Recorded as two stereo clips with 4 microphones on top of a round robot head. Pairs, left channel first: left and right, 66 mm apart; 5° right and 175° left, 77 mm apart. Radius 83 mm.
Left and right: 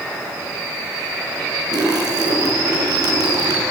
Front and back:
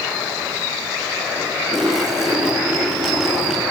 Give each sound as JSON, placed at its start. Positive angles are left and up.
{"t": 1.7, "sound": "a splash", "azimuth_deg": -100, "distance_m": 6.5}